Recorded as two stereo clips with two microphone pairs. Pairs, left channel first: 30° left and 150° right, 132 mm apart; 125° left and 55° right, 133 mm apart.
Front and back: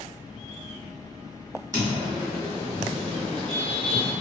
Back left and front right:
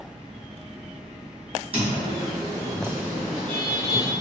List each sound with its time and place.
1.7 s footsteps: 90° right, 1.8 m; by 4.1 s 175° left, 1.2 m